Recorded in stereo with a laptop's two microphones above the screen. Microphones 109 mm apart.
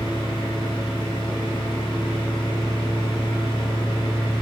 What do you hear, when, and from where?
0.0 s a fan: 40° left (ahead or behind), 0.8 m